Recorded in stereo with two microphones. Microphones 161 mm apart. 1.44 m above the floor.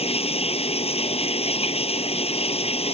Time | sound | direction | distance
0.0 | running water | 40° left (ahead or behind) | ?